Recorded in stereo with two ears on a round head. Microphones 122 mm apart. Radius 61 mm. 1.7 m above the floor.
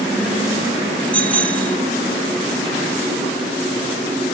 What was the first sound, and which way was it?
A bicycle bell, 10° left (ahead or behind).